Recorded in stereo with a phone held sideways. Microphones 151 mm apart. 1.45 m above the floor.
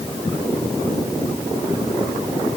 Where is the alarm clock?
I don't hear an alarm clock.